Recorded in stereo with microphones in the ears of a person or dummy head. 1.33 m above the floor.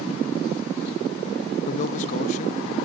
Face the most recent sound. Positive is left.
turn(degrees=40)  # may be behind; listen again after turning